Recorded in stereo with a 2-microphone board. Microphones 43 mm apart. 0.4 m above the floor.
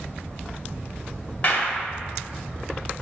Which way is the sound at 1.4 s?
35° left (ahead or behind).